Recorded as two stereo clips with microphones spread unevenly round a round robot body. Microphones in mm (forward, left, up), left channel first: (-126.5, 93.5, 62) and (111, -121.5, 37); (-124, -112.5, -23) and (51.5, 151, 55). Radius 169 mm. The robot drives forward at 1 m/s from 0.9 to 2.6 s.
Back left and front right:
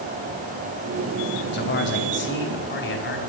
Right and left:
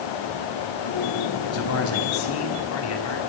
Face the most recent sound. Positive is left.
turn(degrees=-165)